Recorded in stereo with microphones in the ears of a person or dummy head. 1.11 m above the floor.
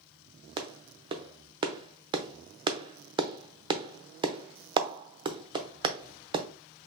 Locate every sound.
0.6 s a clap: 25° right (ahead or behind), 0.6 m